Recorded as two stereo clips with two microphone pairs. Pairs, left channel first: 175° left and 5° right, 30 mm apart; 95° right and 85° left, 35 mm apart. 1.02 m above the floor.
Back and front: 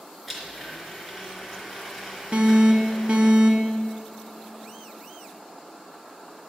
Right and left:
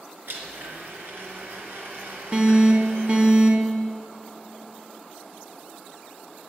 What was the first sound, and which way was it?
A blender, 75° left.